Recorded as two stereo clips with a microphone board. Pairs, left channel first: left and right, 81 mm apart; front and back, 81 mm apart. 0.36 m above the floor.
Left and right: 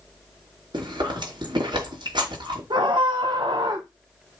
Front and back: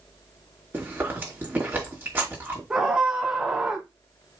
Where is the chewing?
115° right, 4.5 m.